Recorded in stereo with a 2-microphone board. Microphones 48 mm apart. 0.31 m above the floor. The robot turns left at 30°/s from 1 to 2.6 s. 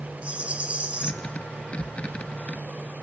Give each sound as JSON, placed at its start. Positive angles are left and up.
{"t": 0.2, "sound": "a rattle", "side_deg": -25, "distance_m": 1.5}